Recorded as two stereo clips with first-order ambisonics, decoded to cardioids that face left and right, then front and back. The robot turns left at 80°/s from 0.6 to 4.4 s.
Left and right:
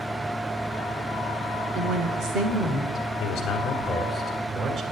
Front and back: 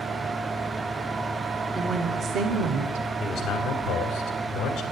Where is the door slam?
I don't hear a door slam.